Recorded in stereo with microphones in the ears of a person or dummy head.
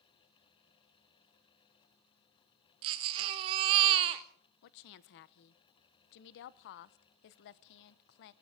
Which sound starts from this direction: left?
A woman speaking, at 4.6 s.